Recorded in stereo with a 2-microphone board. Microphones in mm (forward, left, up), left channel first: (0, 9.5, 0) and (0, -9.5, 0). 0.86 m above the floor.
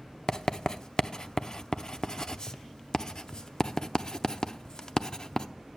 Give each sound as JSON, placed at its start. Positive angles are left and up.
{"t": 0.3, "sound": "writing", "side_deg": 45, "distance_m": 0.5}